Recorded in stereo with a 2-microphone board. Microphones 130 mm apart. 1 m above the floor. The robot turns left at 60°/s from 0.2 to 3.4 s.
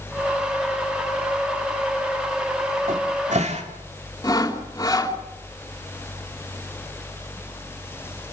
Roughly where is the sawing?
Left.